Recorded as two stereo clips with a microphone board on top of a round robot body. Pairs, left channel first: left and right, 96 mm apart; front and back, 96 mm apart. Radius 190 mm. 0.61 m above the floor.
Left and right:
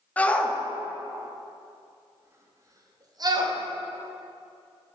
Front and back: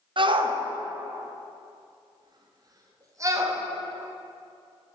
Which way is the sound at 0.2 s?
165° left.